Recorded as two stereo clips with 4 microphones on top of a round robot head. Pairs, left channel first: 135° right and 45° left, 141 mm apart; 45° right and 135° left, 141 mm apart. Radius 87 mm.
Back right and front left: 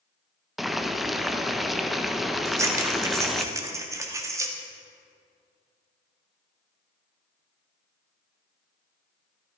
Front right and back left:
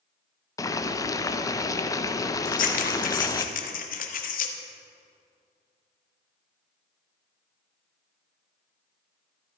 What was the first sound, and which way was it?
Boiling, 45° right.